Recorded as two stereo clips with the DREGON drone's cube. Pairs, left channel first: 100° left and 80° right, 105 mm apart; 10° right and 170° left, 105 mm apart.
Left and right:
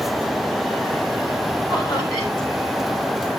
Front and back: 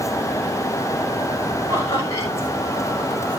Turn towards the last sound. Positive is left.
turn(degrees=50)